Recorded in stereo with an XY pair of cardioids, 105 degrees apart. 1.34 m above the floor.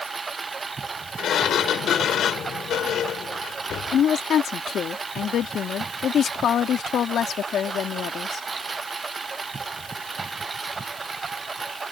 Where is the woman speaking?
60° left.